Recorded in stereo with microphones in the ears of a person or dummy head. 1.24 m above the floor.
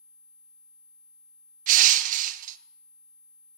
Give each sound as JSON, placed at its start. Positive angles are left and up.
{"t": 1.7, "sound": "crushing", "side_deg": -50, "distance_m": 0.6}